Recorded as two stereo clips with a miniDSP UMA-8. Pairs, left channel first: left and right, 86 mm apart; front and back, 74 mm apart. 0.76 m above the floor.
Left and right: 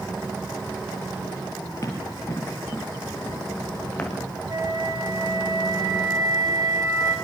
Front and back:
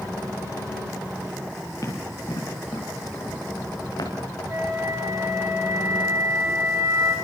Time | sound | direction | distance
1.8 | running footsteps | 40° left | 6.5 m
4.5 | a flute | 130° right | 7 m